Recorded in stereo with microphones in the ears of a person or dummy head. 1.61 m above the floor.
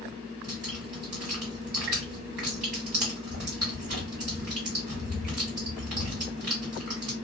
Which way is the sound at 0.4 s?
40° right (ahead or behind).